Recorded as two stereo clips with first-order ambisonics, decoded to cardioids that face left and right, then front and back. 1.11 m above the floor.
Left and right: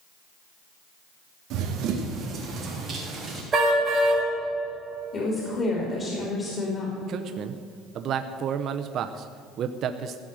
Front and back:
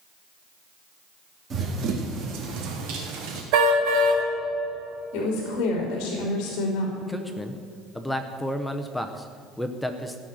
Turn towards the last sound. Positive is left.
turn(degrees=-85)